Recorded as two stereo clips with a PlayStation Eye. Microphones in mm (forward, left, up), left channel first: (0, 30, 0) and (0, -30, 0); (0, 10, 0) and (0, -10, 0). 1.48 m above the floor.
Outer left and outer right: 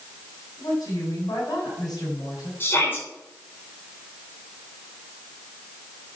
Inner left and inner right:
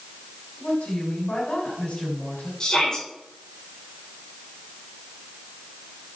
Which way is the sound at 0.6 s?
80° left.